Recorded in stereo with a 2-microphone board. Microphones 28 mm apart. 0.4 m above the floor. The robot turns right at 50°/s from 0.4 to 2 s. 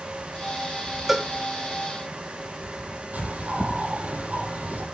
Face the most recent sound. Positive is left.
turn(degrees=-65)  # may be behind; listen again after turning